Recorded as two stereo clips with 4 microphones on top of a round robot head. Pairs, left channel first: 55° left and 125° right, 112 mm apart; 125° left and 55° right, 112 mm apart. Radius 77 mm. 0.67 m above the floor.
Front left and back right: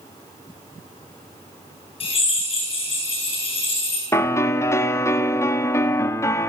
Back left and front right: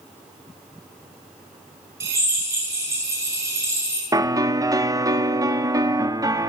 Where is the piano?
5° right, 1.5 m.